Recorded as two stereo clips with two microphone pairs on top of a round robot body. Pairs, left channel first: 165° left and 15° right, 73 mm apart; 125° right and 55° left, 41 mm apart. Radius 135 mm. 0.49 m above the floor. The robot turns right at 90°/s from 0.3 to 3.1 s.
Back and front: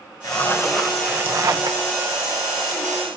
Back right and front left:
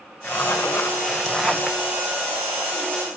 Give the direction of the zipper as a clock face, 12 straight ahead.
5 o'clock.